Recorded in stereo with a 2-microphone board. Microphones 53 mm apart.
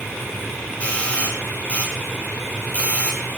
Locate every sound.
0.8 s a doorbell: 25° left (ahead or behind), 8 m